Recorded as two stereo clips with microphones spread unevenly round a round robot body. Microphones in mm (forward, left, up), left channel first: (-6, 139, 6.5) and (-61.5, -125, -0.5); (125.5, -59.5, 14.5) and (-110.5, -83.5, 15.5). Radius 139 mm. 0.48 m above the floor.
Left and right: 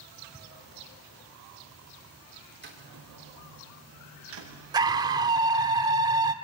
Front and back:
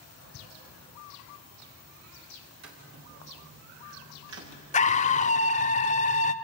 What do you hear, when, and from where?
2.6 s footsteps: 155° right, 6.5 m; by 4.5 s 145° right, 8.5 m
4.7 s a scream: 35° right, 1.2 m